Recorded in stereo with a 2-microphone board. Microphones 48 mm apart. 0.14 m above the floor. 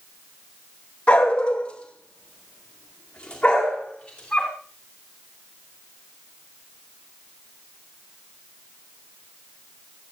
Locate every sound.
1.1 s a dog barking: 25° left (ahead or behind), 2 m; by 4.5 s 15° left (ahead or behind), 5.5 m